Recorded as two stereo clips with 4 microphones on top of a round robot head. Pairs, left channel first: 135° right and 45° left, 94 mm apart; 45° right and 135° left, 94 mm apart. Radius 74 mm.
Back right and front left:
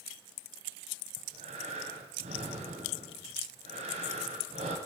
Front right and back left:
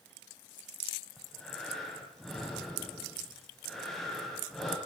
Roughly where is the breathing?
Ahead left.